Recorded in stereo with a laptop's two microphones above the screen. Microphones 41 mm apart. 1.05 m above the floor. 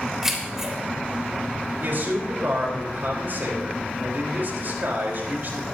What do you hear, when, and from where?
0.2 s keys jangling: 10° right (ahead or behind), 3 m
1.8 s a man speaking: 60° right (ahead or behind), 4 m